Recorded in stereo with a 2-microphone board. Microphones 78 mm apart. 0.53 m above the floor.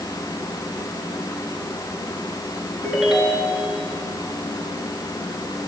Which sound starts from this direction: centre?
A ringtone, at 2.8 s.